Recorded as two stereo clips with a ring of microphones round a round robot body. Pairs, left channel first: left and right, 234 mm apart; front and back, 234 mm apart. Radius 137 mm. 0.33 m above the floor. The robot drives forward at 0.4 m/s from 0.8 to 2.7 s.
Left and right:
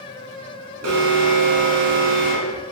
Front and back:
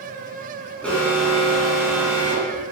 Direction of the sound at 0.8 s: 85° right.